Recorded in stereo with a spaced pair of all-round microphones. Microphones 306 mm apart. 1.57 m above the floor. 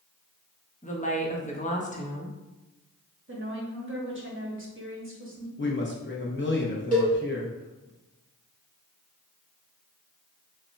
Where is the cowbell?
25° left (ahead or behind), 1.7 m.